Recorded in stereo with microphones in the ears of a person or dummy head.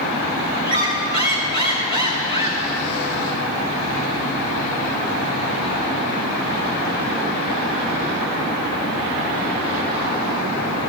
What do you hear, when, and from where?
0.7 s a squeak: 25° left (ahead or behind), 1.8 m